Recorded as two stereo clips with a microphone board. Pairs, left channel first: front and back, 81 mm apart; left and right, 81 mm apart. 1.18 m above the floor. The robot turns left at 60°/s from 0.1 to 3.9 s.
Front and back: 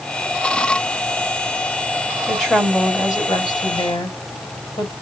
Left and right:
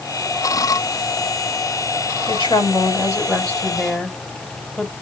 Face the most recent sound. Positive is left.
turn(degrees=-5)